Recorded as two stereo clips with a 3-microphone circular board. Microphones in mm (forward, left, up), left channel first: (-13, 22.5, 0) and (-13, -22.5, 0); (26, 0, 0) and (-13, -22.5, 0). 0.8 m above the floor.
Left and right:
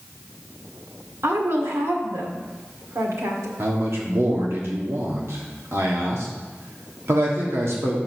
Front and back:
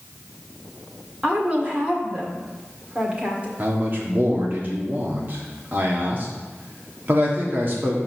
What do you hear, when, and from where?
1.2 s a woman speaking: 90° right, 1.7 m
3.6 s a man speaking: 105° right, 1.5 m